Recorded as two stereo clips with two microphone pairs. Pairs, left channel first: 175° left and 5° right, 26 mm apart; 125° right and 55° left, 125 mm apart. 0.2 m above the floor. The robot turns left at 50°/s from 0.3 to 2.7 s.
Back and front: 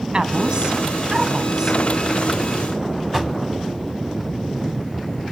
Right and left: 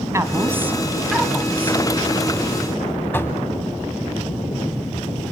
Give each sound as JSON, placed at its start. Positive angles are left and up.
{"t": 0.1, "sound": "a woman speaking", "azimuth_deg": 10, "distance_m": 1.7}
{"t": 3.1, "sound": "knocking", "azimuth_deg": -80, "distance_m": 1.2}